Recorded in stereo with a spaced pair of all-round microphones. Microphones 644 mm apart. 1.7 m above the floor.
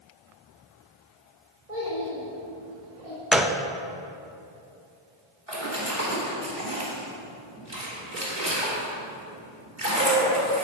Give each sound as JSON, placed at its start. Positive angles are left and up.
{"t": 1.7, "sound": "a child speaking", "side_deg": -75, "distance_m": 3.5}
{"t": 3.3, "sound": "a gunshot", "side_deg": 0, "distance_m": 0.5}
{"t": 5.5, "sound": "a splash", "side_deg": -55, "distance_m": 3.0}